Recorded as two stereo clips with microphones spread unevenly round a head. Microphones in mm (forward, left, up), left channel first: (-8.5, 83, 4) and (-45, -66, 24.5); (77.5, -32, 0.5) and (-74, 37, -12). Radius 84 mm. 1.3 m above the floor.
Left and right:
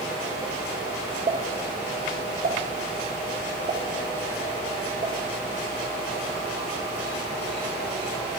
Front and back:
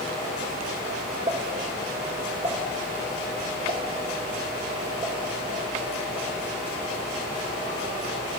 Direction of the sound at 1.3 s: 150° right.